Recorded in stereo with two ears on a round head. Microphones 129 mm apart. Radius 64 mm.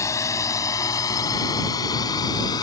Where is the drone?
20° left (ahead or behind); by 2.6 s 30° left (ahead or behind).